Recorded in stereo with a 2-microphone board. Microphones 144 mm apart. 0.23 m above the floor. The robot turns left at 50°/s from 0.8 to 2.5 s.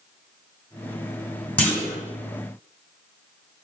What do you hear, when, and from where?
1.6 s a clunk: 10° left (ahead or behind), 1.2 m; by 2.0 s 20° left (ahead or behind), 1.2 m